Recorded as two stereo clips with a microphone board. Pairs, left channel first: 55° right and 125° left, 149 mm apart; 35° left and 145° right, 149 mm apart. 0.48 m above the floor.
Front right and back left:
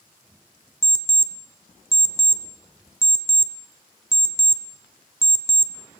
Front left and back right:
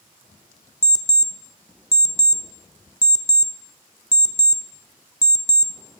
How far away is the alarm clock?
About 0.5 m.